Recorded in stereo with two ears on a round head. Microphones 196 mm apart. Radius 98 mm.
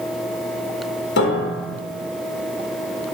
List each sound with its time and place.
1.2 s a piano: 50° left (ahead or behind), 1.3 m